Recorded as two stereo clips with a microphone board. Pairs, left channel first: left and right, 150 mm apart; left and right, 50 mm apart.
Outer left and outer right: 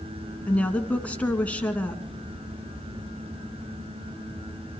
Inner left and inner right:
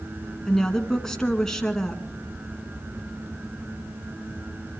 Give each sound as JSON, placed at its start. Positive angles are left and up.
{"t": 0.5, "sound": "a woman speaking", "side_deg": 10, "distance_m": 2.0}